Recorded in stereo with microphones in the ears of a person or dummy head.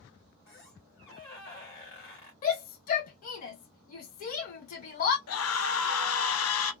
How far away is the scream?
About 0.7 m.